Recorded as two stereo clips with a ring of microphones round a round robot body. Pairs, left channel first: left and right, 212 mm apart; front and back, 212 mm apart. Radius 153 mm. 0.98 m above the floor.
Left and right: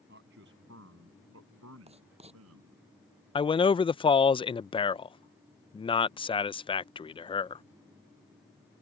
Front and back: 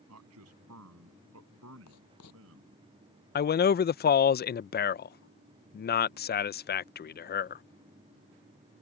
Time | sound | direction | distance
0.1 | a man speaking | 150° right | ?
1.9 | writing | 30° right | ?
3.4 | a man speaking | 25° left | ?